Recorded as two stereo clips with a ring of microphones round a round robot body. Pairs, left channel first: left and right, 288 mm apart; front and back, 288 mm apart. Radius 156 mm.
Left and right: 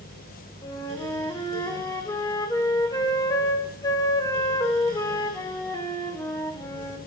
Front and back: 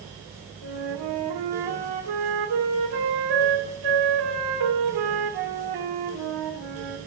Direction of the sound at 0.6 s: 170° left.